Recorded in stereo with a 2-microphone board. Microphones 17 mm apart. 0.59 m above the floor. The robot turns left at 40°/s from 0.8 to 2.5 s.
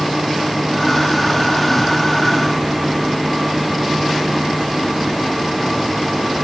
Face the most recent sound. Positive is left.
No sound to turn to.